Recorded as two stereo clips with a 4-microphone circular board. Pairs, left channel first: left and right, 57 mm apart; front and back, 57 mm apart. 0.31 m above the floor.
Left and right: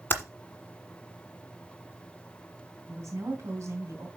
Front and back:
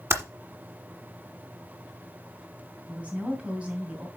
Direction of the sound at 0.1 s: 140° left.